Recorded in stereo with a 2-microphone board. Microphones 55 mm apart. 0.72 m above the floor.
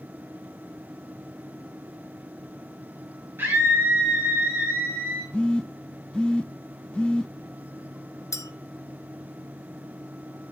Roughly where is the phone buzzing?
Centre.